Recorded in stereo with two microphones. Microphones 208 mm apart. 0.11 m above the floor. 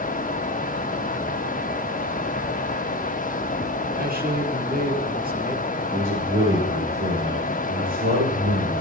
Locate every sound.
3.9 s a man speaking: 45° right (ahead or behind), 2.5 m
5.9 s a man speaking: 80° right, 8.5 m